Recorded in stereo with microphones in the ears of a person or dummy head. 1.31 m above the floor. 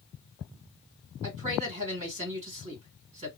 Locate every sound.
1.2 s a man speaking: 30° right (ahead or behind), 1.7 m